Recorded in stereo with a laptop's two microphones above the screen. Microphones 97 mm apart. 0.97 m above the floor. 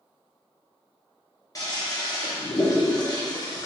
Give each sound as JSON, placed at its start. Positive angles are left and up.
{"t": 1.6, "sound": "a toilet flushing", "side_deg": 35, "distance_m": 0.7}